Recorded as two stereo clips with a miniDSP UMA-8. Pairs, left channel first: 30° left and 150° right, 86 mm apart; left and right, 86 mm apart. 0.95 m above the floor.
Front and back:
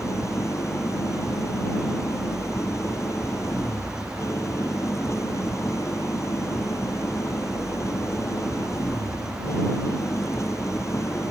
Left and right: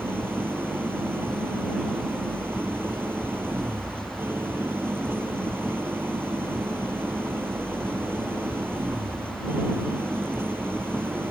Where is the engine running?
25° right.